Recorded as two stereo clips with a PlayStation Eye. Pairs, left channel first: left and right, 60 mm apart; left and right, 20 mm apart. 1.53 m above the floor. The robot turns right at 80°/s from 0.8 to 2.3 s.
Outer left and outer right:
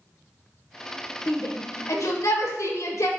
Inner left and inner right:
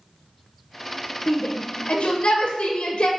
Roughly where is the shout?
Left.